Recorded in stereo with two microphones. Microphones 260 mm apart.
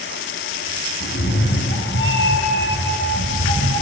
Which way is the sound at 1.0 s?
50° left (ahead or behind).